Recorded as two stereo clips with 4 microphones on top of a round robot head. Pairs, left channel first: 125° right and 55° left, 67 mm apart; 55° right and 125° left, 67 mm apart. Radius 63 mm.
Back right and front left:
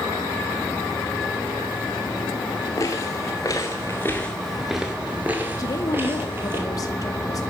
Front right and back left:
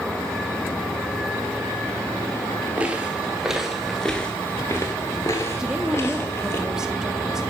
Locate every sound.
2.8 s footsteps: 165° right, 1.4 m; by 6.6 s straight ahead, 1.7 m
5.6 s a woman speaking: 155° right, 1.9 m